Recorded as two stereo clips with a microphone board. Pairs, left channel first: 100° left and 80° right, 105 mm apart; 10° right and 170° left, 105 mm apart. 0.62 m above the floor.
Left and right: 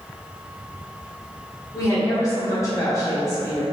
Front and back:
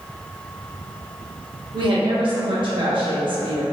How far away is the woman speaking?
About 0.9 m.